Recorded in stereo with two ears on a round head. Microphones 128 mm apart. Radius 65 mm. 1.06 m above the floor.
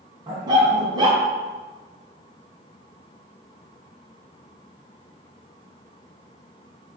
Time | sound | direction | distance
0.3 | a dog barking | 30° right (ahead or behind) | 3 m